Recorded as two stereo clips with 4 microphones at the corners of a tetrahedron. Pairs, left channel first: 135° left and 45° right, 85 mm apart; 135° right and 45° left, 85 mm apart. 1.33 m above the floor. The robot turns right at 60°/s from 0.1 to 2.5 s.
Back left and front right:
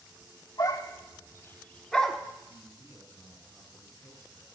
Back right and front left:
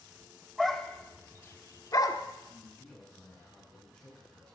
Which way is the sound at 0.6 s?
135° left.